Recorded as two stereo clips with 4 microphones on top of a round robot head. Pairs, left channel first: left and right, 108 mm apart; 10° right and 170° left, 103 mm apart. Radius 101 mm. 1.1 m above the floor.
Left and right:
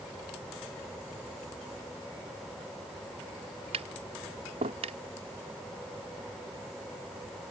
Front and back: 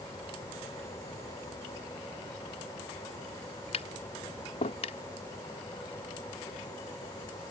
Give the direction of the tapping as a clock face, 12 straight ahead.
2 o'clock.